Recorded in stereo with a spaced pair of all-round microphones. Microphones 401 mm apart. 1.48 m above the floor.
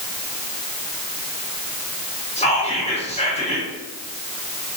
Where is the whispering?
15° left (ahead or behind), 1.5 m.